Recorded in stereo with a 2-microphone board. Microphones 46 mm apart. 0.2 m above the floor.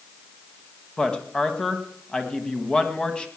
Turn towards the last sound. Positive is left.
turn(degrees=20)  # may be behind; listen again after turning